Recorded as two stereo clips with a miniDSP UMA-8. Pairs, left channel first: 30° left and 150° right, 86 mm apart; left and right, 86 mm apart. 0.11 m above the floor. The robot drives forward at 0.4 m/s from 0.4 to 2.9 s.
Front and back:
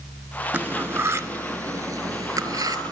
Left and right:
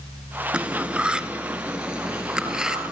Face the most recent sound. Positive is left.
turn(degrees=-170)